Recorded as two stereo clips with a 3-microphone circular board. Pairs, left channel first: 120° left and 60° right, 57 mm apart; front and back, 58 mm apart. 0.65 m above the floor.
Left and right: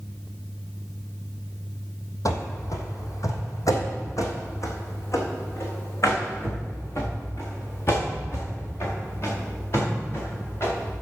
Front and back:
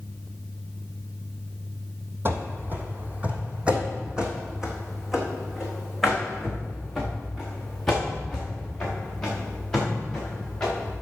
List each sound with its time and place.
2.2 s running footsteps: 135° left, 1.7 m; by 10.9 s 80° left, 6 m